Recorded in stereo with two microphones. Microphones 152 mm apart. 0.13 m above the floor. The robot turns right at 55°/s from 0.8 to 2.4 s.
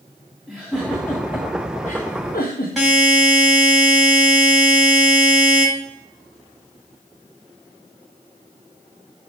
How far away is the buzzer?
About 5 m.